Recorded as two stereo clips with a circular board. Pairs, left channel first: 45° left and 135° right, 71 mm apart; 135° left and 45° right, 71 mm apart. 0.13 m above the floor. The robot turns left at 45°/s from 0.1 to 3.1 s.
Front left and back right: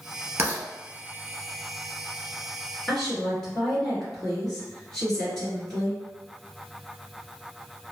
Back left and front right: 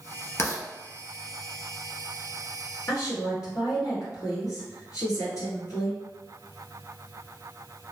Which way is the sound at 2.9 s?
135° left.